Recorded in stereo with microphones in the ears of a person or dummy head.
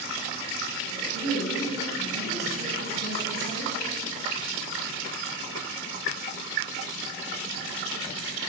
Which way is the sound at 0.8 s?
40° right (ahead or behind).